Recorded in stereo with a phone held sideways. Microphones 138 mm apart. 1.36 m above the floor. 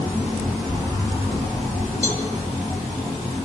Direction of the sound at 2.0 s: 70° left (ahead or behind).